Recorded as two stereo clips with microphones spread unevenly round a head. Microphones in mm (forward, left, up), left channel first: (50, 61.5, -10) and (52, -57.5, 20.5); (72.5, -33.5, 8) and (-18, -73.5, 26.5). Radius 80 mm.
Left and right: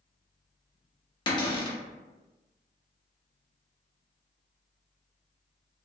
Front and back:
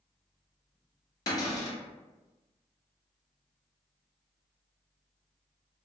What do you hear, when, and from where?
1.3 s a cupboard door: 60° left, 0.7 m